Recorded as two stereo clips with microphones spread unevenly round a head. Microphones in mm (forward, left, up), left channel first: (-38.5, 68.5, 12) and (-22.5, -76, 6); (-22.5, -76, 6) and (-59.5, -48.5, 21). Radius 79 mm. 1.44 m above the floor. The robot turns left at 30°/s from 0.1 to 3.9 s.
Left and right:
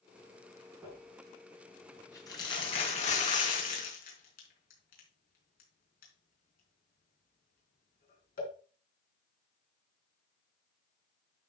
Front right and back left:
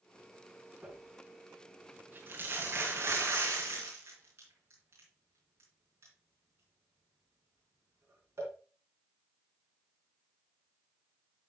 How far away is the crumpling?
About 4 m.